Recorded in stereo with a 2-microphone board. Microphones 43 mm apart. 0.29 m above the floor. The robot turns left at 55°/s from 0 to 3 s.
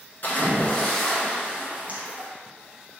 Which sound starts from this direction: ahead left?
A splash, at 0.2 s.